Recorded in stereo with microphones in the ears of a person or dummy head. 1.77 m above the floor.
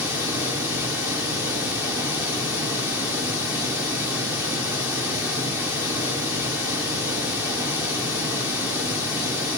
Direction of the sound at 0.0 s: 10° right (ahead or behind).